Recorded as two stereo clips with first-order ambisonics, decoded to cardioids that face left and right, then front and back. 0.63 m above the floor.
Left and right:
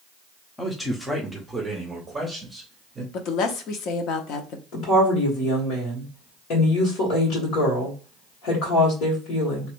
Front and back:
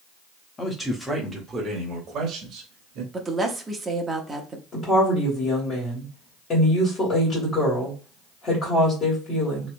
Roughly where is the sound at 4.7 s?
Ahead left.